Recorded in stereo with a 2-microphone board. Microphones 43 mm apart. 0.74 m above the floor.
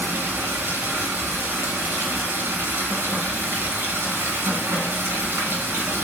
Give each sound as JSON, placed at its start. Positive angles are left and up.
{"t": 0.0, "sound": "running water", "side_deg": -60, "distance_m": 2.5}